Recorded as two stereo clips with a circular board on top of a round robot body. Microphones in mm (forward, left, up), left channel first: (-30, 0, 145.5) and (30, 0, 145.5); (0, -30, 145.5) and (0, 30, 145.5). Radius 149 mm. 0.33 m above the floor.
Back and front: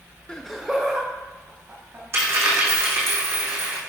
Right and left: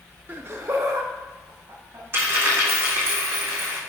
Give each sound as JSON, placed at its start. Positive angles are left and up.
{"t": 0.3, "sound": "laughter", "azimuth_deg": 115, "distance_m": 1.0}
{"t": 2.1, "sound": "a dropped coin", "azimuth_deg": 40, "distance_m": 3.0}